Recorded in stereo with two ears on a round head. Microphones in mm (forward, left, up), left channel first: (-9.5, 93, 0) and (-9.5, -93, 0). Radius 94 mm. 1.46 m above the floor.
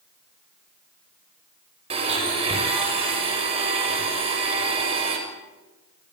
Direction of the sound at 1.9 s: 30° right (ahead or behind).